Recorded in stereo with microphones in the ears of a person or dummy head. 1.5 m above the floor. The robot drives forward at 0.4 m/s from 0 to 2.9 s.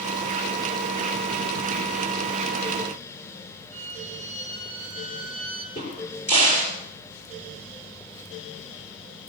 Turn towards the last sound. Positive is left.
turn(degrees=30)  # may be behind; listen again after turning